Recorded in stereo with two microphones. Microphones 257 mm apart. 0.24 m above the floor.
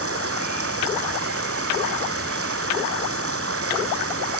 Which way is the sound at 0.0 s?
60° right (ahead or behind).